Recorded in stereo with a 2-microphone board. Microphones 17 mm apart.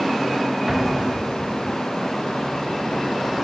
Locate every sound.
0.7 s an explosion: 15° right (ahead or behind), 3 m